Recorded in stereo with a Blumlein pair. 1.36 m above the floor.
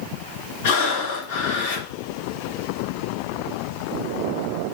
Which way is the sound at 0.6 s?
50° left.